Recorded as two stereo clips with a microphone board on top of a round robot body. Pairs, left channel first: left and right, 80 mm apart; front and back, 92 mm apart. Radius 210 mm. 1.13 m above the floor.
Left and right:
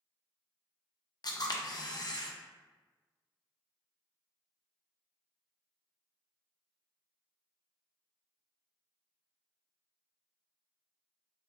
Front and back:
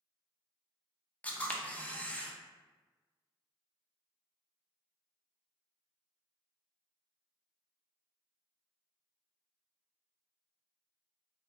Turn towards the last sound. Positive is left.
turn(degrees=70)